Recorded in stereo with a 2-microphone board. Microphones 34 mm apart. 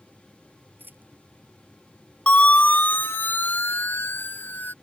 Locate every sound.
0.8 s a dropped coin: 65° right (ahead or behind)
2.3 s a siren: 40° left (ahead or behind); by 4.7 s 70° left (ahead or behind)